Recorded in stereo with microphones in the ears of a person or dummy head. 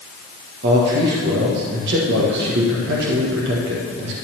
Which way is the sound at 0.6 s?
60° right (ahead or behind).